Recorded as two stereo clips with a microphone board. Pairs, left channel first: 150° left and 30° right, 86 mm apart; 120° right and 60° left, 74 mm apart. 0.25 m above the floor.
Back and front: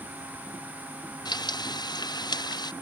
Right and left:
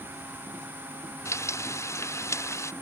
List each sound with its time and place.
1.2 s frying: 175° right